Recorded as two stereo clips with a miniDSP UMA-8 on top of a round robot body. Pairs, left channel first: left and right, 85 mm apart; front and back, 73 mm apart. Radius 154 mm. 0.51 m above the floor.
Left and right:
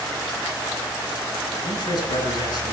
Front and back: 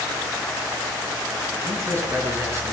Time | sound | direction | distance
1.6 | a man speaking | 125° left | 5.5 m